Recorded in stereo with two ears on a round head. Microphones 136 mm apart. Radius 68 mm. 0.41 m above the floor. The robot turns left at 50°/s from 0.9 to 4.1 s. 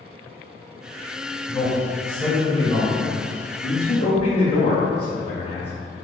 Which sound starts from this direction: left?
A man speaking, at 3.6 s.